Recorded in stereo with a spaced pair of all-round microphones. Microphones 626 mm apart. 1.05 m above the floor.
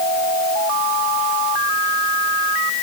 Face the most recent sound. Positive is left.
No sound to turn to.